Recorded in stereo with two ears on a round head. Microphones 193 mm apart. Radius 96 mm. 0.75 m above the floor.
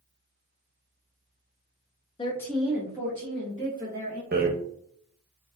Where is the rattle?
45° right (ahead or behind), 0.7 m.